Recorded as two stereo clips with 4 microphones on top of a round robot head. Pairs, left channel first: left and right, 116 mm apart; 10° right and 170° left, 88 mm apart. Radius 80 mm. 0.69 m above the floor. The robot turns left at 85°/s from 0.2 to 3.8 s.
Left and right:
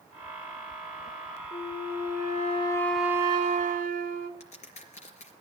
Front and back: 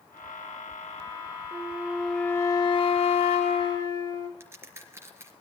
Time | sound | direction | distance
1.5 | a flute | 125° left | 1.0 m
4.4 | a crack | 110° left | 4 m